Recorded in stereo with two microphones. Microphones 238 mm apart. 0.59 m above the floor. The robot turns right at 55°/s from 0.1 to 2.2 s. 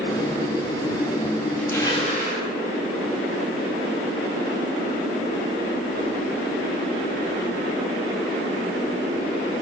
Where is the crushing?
5° left, 2.5 m; by 2.4 s 35° left, 2.5 m.